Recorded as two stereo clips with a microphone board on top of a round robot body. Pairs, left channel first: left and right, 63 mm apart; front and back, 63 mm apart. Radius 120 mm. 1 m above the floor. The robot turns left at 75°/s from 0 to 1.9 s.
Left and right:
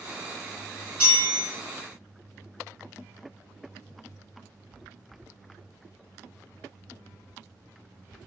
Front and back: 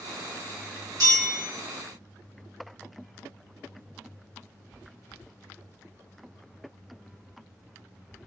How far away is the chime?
About 0.6 m.